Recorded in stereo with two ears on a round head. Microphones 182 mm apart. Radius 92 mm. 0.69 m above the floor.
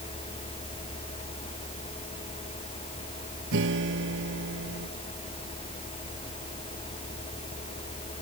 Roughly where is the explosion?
I don't hear an explosion.